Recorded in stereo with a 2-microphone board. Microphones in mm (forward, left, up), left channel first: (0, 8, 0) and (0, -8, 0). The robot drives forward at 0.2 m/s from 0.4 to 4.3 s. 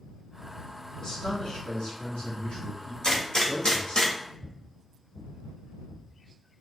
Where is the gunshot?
55° left (ahead or behind), 1.4 m; by 4.2 s 60° left (ahead or behind), 1.4 m.